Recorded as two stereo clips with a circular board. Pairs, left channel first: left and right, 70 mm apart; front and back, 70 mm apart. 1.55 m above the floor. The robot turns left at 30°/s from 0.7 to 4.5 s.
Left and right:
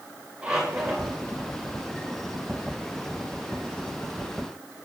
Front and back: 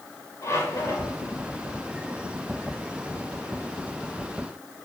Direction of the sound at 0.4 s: 15° right.